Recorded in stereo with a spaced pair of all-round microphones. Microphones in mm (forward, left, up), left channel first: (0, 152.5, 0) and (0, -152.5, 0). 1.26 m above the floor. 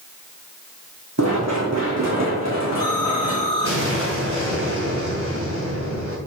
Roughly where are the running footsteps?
Right.